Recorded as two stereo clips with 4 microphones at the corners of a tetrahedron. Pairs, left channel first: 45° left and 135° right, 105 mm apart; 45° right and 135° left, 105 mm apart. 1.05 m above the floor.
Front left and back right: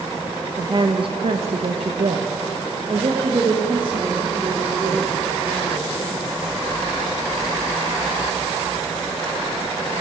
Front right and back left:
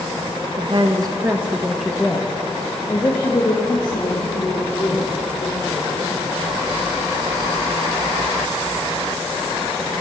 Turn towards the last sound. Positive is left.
turn(degrees=-85)